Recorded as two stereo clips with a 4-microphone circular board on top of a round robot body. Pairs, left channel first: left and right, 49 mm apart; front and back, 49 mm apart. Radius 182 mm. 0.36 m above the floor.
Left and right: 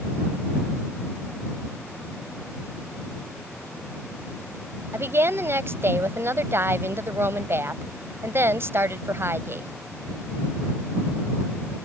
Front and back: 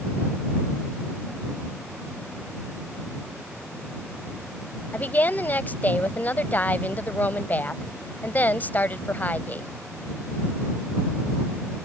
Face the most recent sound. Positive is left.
turn(degrees=-55)